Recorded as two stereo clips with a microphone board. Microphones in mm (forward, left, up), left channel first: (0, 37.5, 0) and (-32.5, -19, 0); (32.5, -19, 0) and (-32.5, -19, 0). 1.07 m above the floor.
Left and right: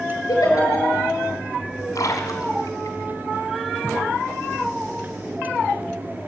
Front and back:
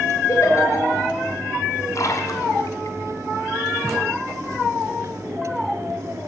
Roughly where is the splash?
Ahead left.